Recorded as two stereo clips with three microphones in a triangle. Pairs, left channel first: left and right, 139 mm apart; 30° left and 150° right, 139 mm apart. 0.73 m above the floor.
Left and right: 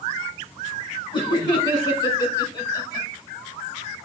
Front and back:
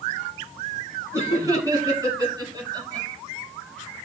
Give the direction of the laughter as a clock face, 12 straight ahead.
7 o'clock.